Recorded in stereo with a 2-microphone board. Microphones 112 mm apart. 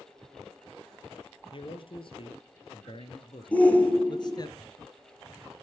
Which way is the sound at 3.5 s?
10° left (ahead or behind).